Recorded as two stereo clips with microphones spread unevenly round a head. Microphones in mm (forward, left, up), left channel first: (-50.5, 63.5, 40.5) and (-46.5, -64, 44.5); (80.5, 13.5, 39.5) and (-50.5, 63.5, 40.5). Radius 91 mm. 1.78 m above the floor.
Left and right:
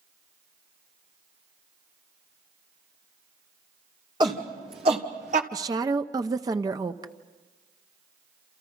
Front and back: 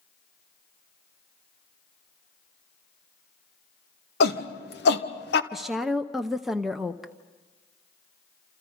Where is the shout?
20° right, 2.5 m; by 5.4 s 40° right, 1.5 m.